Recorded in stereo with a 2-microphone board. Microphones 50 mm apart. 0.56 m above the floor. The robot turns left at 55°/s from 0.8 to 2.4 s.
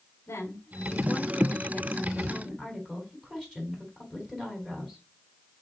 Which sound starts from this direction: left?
A woman speaking, at 0.3 s.